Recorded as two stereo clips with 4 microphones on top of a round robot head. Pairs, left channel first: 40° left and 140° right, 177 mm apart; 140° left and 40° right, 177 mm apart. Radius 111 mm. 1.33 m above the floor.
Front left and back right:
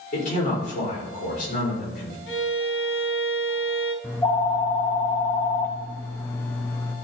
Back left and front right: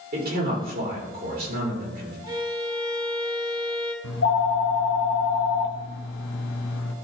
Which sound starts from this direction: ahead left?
A violin, at 2.3 s.